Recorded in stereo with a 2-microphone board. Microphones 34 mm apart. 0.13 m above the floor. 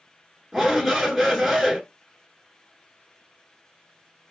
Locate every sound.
0.5 s a shout: 5° right (ahead or behind), 1.4 m